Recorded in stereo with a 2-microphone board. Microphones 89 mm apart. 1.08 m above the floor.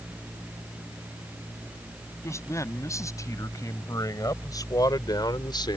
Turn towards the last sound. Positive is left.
turn(degrees=60)  # may be behind; listen again after turning